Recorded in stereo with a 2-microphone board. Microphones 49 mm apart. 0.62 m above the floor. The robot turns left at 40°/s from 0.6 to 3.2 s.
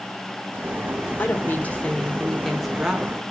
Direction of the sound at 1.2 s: 50° left.